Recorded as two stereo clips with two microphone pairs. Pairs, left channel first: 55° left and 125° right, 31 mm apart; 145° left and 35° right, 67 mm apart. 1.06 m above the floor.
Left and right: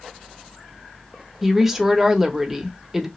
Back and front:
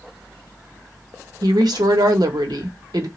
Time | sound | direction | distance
1.4 | a woman speaking | 40° right | 0.8 m